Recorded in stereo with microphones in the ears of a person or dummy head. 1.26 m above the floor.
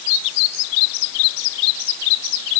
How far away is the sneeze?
I don't hear a sneeze.